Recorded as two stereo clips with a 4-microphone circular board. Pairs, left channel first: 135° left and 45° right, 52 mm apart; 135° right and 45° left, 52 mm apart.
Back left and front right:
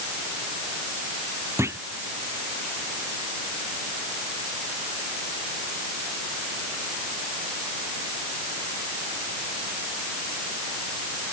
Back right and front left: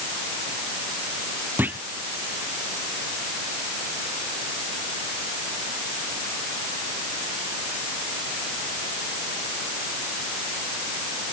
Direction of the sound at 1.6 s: 10° right.